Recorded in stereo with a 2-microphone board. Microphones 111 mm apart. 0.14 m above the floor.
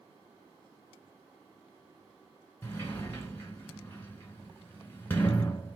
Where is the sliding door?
20° left (ahead or behind), 1.5 m.